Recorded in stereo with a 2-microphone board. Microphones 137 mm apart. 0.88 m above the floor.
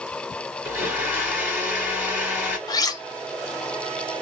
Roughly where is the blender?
Centre.